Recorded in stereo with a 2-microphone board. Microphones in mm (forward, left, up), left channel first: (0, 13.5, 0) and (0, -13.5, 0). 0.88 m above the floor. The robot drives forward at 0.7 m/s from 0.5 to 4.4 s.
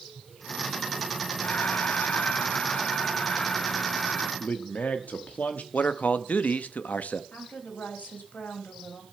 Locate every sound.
1.4 s breathing: 65° left (ahead or behind), 0.9 m; by 4.3 s 20° left (ahead or behind), 2 m
4.4 s a man speaking: 60° left (ahead or behind), 1.2 m
5.7 s a man speaking: 65° left (ahead or behind), 1.0 m
7.3 s a woman speaking: 75° left (ahead or behind), 4 m